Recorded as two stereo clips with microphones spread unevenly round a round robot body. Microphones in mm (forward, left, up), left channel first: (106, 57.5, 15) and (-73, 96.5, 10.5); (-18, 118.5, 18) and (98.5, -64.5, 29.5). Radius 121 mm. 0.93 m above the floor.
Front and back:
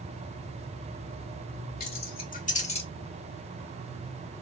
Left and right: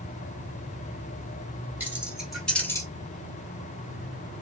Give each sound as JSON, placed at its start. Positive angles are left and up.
{"t": 1.8, "sound": "keys jangling", "azimuth_deg": 25, "distance_m": 2.5}